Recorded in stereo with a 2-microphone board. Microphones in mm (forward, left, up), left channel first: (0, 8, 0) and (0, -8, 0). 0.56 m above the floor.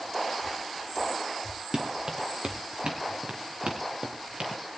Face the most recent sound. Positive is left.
turn(degrees=-65)  # may be behind; listen again after turning